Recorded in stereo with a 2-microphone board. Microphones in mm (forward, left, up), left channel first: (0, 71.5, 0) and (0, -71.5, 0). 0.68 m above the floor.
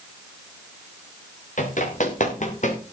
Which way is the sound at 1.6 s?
60° left (ahead or behind).